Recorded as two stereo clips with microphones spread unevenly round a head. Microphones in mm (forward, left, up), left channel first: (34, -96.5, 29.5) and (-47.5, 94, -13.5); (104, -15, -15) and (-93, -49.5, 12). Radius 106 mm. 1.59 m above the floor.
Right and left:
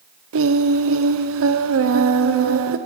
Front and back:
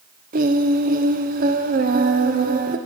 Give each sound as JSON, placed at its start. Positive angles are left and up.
{"t": 0.3, "sound": "singing", "azimuth_deg": 135, "distance_m": 0.9}